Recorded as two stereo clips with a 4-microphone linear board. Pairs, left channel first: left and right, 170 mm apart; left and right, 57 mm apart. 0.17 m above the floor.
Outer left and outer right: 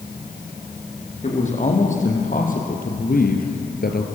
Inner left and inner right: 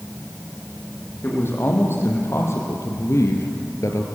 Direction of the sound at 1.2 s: 40° left (ahead or behind).